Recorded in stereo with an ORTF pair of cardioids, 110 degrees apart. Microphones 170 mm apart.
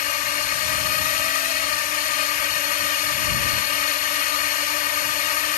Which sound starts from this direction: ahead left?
A drone, at 0.0 s.